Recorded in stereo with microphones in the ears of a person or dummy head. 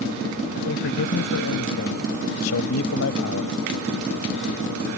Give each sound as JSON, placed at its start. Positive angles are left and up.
{"t": 0.6, "sound": "a man speaking", "side_deg": 65}